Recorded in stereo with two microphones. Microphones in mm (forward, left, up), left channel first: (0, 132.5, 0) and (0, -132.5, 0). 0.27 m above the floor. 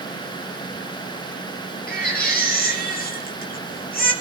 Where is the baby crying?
35° left (ahead or behind), 4 m.